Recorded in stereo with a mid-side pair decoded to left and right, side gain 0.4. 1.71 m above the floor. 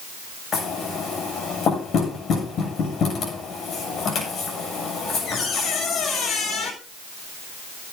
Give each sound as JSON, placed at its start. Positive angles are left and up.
{"t": 0.5, "sound": "knocking", "azimuth_deg": 70, "distance_m": 9.0}